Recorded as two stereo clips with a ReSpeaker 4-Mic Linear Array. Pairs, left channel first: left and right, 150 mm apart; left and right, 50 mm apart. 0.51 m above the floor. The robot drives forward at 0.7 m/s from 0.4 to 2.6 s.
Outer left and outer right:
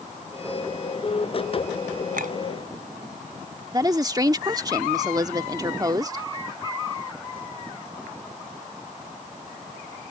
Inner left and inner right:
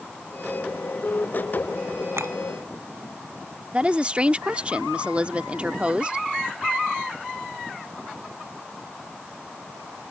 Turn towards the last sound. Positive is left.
turn(degrees=-25)  # may be behind; listen again after turning